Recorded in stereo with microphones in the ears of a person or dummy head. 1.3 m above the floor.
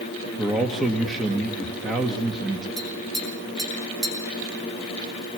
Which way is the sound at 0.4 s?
5° right (ahead or behind).